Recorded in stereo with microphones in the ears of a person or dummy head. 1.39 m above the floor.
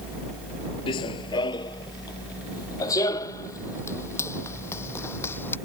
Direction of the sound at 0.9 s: 30° left (ahead or behind).